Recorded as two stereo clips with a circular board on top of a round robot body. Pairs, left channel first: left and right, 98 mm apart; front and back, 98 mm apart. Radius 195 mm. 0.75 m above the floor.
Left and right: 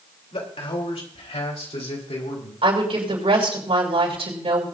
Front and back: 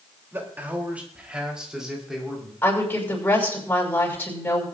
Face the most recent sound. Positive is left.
turn(degrees=-70)